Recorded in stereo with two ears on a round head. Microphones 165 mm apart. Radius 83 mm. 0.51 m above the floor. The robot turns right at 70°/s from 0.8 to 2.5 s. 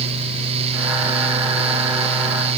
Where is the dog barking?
I don't hear a dog barking.